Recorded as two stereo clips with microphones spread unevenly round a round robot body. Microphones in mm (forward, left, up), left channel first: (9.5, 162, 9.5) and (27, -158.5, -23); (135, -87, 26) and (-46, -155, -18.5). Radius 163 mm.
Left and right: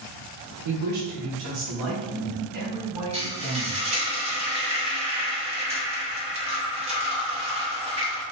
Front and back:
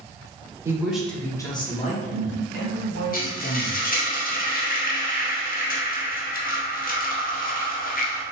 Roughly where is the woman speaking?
Right.